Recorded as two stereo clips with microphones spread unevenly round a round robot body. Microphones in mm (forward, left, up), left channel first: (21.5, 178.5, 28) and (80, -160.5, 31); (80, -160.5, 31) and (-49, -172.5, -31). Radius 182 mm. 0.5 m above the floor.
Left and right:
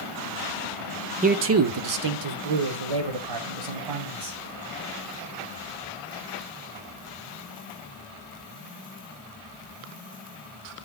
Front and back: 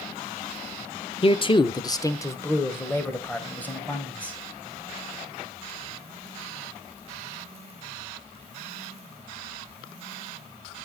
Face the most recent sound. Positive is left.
turn(degrees=-80)